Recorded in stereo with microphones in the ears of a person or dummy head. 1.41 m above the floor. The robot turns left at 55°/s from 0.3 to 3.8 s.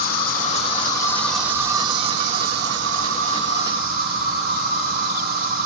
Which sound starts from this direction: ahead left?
An insect, at 0.0 s.